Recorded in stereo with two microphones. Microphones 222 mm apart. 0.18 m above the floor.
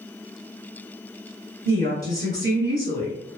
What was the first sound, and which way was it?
A woman speaking, 45° right (ahead or behind).